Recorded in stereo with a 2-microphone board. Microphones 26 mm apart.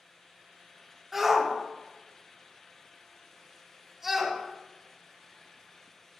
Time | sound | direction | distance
1.1 | a shout | 10° right (ahead or behind) | 1.6 m